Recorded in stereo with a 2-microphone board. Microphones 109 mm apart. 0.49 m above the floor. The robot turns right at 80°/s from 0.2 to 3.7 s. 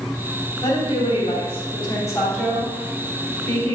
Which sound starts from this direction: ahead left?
A woman speaking, at 0.6 s.